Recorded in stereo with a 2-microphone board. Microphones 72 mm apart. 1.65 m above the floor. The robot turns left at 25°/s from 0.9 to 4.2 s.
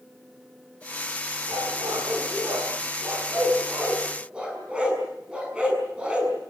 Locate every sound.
1.5 s a dog barking: 80° right, 6.5 m; by 6.3 s 15° right (ahead or behind), 6.5 m